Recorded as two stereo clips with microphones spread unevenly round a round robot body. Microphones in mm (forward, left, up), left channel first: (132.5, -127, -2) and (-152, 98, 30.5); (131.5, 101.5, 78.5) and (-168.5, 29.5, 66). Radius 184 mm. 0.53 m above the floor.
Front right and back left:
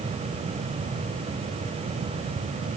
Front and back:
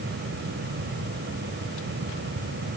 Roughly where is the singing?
No singing in this recording.